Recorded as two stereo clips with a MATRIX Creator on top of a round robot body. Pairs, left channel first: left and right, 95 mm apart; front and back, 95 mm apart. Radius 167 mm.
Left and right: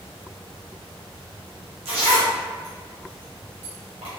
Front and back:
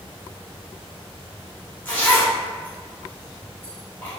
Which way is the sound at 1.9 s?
70° right.